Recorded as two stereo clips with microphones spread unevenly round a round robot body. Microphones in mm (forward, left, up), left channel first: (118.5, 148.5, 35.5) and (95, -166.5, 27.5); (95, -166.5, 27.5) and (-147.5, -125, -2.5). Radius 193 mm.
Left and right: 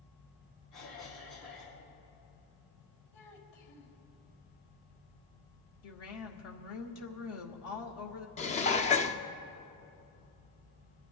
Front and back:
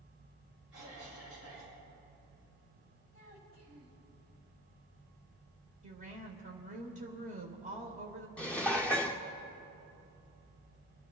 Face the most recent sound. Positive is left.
turn(degrees=90)